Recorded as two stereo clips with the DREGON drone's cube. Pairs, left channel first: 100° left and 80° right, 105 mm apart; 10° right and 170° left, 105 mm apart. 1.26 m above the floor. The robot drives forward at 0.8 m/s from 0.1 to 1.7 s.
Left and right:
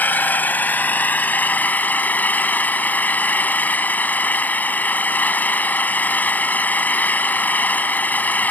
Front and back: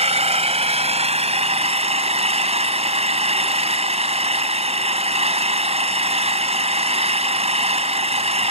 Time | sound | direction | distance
0.0 | an engine running | 175° left | ?